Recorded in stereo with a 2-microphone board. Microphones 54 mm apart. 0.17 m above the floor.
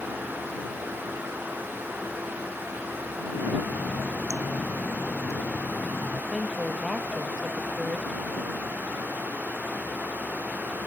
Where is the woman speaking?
5° right (ahead or behind).